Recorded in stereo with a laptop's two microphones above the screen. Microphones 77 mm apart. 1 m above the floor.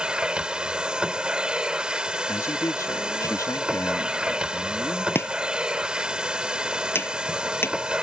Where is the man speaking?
50° left (ahead or behind).